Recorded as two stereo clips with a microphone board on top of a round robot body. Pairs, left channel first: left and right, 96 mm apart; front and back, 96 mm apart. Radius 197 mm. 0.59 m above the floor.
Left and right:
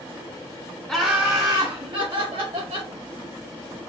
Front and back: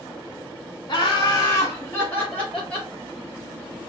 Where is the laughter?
5° left, 1.1 m; by 2.9 s 80° right, 2.5 m.